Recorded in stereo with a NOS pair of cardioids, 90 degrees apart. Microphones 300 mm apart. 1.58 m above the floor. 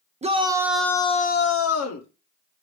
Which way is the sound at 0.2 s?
20° right.